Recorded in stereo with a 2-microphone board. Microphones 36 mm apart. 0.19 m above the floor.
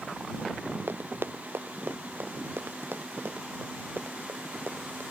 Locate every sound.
0.9 s running footsteps: 70° right (ahead or behind); by 5.0 s 75° right (ahead or behind)